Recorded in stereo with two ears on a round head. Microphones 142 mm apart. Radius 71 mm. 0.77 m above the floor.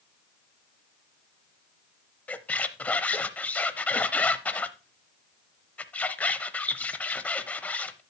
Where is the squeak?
10° left (ahead or behind), 0.6 m.